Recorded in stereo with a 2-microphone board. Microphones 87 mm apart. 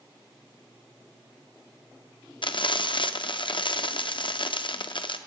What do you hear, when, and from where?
2.4 s frying: 65° left (ahead or behind), 0.5 m